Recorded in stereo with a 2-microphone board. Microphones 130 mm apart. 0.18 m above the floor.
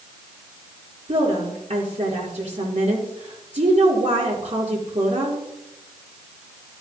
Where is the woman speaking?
65° right (ahead or behind), 4 m.